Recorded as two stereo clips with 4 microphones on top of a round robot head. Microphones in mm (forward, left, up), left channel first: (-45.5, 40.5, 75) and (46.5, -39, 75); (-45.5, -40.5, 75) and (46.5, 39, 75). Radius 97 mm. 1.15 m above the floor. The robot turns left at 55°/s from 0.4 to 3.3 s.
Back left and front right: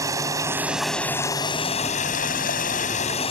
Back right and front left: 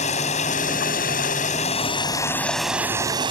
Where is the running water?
105° right; by 3.3 s 95° left.